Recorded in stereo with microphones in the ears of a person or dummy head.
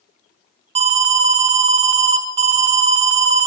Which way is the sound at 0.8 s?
35° right (ahead or behind).